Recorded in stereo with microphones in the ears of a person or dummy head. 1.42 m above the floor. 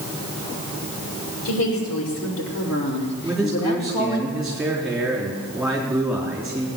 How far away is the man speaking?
About 3.5 m.